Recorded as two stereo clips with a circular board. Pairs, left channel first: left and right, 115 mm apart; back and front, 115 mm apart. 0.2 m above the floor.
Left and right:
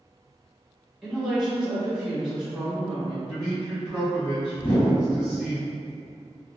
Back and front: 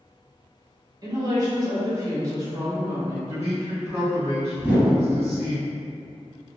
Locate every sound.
1.0 s a woman speaking: 5° right, 1.2 m
3.3 s a man speaking: 10° right, 1.3 m
4.6 s a whoosh: 65° left, 1.7 m